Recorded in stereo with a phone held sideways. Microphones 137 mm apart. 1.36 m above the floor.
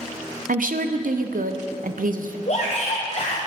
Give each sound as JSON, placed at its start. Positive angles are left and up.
{"t": 0.5, "sound": "a woman speaking", "side_deg": -80, "distance_m": 0.6}
{"t": 2.5, "sound": "a shout", "side_deg": 55, "distance_m": 0.9}